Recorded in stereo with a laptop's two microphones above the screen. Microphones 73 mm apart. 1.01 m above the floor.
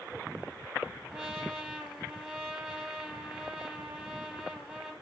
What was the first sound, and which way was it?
A trumpet, 15° right (ahead or behind).